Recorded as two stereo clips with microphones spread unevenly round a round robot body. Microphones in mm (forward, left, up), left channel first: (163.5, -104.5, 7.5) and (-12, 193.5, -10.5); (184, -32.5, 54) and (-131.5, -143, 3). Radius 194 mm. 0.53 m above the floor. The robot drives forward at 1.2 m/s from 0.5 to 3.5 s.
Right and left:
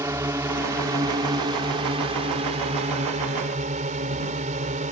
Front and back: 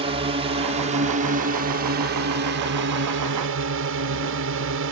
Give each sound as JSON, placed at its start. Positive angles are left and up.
{"t": 0.0, "sound": "a drone", "azimuth_deg": -170}